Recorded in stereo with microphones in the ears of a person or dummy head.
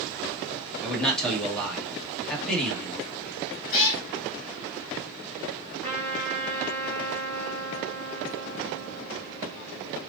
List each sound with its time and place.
0.8 s a man speaking: 5° left (ahead or behind), 1.8 m
3.7 s a cat meowing: 45° left (ahead or behind), 2.5 m
5.8 s a trumpet: 10° left (ahead or behind), 1.2 m